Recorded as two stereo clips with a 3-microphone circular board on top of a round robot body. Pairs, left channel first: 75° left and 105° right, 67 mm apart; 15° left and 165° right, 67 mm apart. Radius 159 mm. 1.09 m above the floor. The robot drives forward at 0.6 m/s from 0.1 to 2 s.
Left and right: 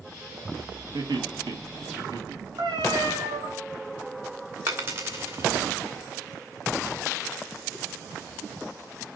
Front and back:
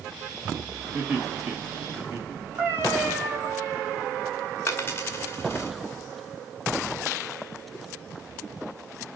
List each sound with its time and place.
0.9 s laughter: 95° right, 2.5 m; by 2.4 s 110° right, 2.5 m
2.6 s a cat meowing: 110° right, 3.5 m
4.7 s a dropped coin: 50° right, 0.8 m